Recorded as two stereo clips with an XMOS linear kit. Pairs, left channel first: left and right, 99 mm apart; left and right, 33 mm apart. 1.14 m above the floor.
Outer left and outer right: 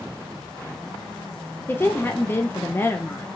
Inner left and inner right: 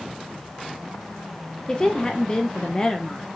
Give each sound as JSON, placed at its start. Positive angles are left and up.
{"t": 1.7, "sound": "a woman speaking", "side_deg": 20, "distance_m": 0.8}